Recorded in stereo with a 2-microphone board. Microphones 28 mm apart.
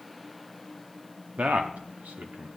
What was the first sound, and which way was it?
A man speaking, 60° right (ahead or behind).